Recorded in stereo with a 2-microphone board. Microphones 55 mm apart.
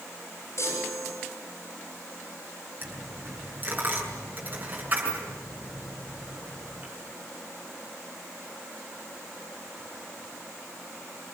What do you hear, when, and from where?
0.6 s a chime: 55° left (ahead or behind), 7 m
2.8 s a dropped coin: 30° right (ahead or behind), 6 m